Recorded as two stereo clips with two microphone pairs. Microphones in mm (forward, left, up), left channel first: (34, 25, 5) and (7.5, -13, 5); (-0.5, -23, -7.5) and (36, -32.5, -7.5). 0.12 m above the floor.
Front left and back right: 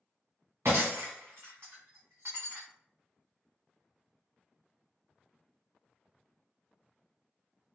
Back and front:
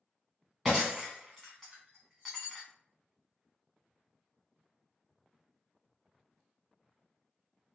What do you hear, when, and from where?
0.7 s breaking glass: 100° right, 1.9 m